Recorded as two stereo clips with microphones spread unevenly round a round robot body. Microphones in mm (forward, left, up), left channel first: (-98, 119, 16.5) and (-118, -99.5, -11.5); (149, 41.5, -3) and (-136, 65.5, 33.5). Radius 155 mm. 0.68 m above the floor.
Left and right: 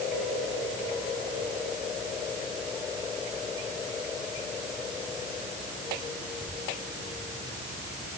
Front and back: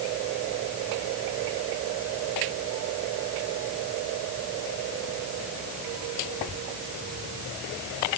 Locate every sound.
Only background noise.